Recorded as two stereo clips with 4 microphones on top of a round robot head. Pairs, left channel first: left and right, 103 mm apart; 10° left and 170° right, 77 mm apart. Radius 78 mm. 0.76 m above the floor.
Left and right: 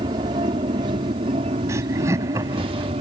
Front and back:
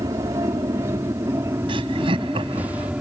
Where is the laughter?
160° right.